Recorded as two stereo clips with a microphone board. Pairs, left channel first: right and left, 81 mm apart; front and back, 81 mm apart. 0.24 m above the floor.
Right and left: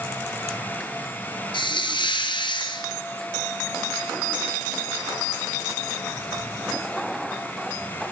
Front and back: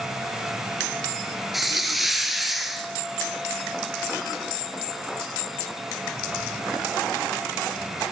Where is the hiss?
90° right, 1.4 m.